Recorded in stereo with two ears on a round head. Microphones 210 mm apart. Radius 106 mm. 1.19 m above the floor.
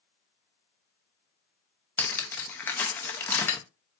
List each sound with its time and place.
2.0 s cutlery clinking: 10° left (ahead or behind), 0.5 m